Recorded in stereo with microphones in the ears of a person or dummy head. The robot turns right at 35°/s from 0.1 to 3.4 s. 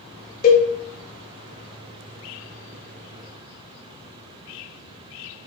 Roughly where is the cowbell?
Left.